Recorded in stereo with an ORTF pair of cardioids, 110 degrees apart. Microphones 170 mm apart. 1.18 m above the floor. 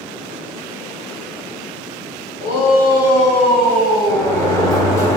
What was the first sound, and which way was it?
A shout, 65° left.